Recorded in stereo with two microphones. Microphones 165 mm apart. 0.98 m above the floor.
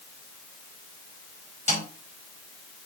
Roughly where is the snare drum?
Left.